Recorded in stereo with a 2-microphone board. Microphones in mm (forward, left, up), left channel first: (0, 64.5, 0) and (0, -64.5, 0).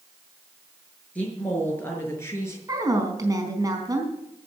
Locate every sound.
1.1 s a woman speaking: 10° left (ahead or behind), 6 m; by 2.6 s 25° left (ahead or behind), 5.5 m
2.7 s a woman speaking: 30° right (ahead or behind), 4 m